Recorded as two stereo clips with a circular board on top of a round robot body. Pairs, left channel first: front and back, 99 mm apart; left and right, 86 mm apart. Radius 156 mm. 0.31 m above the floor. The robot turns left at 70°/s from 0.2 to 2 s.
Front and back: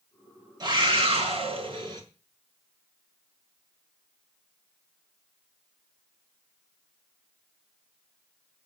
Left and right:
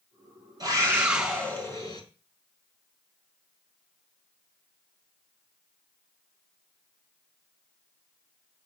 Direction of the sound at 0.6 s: 135° right.